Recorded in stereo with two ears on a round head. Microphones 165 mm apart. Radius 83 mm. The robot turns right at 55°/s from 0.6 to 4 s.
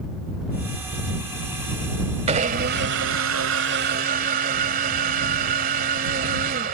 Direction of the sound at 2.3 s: 145° right.